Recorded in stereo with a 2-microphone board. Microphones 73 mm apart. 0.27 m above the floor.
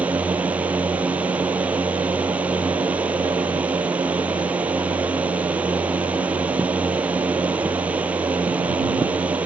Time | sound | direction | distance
0.0 | a drone | 20° right (ahead or behind) | ?